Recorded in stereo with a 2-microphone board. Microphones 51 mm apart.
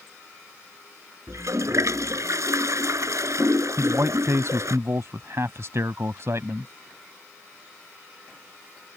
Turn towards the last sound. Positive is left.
turn(degrees=-60)  # may be behind; listen again after turning